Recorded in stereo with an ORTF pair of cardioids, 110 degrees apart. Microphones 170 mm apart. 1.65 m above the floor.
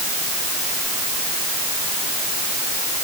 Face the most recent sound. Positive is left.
No sound to turn to.